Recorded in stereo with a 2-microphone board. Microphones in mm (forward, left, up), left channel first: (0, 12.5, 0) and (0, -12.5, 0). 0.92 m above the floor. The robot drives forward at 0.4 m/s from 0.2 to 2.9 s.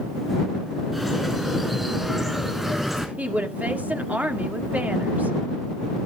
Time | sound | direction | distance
0.9 | a bird | 10° right (ahead or behind) | 4.5 m
3.2 | a woman speaking | 75° right (ahead or behind) | 1.8 m